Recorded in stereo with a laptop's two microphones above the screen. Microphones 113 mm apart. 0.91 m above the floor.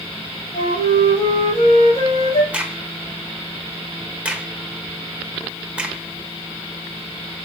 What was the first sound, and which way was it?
A flute, 55° left (ahead or behind).